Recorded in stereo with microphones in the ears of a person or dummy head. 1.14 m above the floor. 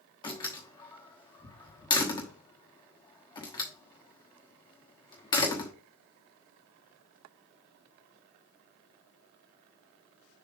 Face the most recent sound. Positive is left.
turn(degrees=25)  # may be behind; listen again after turning